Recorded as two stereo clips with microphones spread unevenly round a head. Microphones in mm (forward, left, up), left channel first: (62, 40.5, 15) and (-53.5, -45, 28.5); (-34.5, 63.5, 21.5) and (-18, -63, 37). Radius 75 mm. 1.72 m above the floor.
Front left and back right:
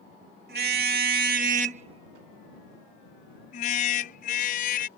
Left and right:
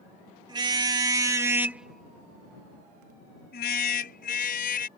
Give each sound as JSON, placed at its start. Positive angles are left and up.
{"t": 0.5, "sound": "a car horn", "azimuth_deg": -135}